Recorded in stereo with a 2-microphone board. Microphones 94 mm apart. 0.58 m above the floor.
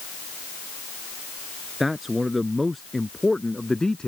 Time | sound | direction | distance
1.8 | a man speaking | centre (ahead or behind) | ?